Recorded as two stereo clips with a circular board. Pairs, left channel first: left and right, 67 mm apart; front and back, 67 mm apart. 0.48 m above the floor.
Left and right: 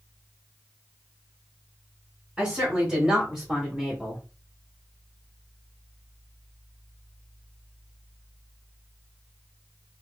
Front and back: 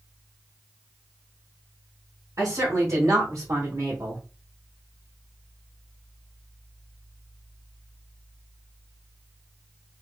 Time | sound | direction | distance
2.4 | a woman speaking | 155° right | 2 m